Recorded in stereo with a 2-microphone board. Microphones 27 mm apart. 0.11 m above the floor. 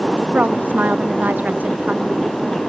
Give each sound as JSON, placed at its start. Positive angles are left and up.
{"t": 0.3, "sound": "a woman speaking", "side_deg": -80}